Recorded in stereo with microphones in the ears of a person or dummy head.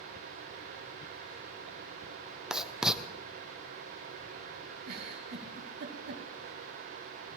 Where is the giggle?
55° right (ahead or behind), 2.5 m.